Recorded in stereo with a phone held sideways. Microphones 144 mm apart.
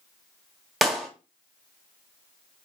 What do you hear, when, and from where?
0.8 s a clap: centre (ahead or behind), 2.5 m